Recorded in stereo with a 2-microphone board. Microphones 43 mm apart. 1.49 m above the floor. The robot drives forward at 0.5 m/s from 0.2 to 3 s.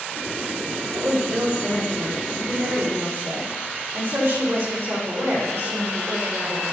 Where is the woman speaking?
75° right (ahead or behind), 3.5 m; by 6.7 s 85° right, 3.5 m.